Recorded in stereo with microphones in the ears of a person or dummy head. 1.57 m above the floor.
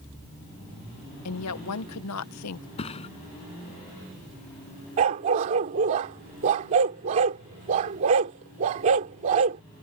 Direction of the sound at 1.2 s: 80° left.